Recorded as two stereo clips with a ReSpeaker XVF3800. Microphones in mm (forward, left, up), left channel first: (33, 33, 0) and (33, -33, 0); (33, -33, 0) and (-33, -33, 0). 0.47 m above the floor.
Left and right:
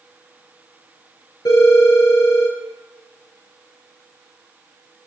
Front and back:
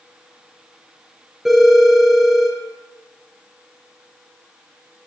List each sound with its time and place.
1.4 s a phone ringing: 95° left, 5 m